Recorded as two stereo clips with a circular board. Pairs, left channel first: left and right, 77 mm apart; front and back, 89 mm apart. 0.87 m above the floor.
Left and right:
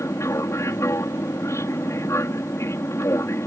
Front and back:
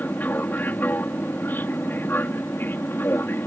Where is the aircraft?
60° left; by 3.5 s 55° left.